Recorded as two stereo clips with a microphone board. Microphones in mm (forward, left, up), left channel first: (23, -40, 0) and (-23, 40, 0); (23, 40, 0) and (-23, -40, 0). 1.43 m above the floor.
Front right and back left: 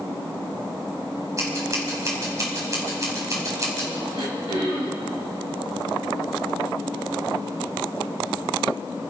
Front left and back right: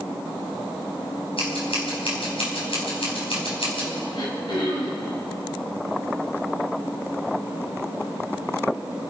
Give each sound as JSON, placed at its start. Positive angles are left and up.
{"t": 1.4, "sound": "scissors", "azimuth_deg": 65, "distance_m": 4.5}
{"t": 4.1, "sound": "throat clearing", "azimuth_deg": 95, "distance_m": 3.5}